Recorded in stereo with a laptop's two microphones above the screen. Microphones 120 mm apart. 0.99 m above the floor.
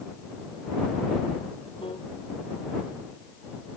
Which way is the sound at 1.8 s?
45° left (ahead or behind).